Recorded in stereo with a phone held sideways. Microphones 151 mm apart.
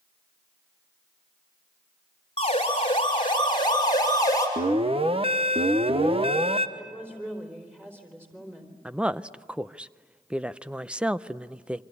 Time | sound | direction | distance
2.4 | a siren | 40° left (ahead or behind) | 5 m
4.6 | an alarm | 40° right (ahead or behind) | 1.0 m
6.8 | a woman speaking | 10° right (ahead or behind) | 4 m
8.8 | a woman speaking | 5° right (ahead or behind) | 0.6 m